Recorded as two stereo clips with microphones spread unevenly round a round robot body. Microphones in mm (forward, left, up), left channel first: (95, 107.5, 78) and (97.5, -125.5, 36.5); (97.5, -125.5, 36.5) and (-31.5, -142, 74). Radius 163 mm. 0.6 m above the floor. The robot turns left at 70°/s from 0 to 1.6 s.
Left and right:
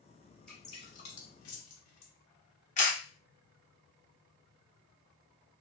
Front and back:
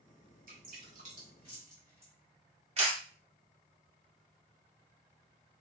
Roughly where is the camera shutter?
Behind left.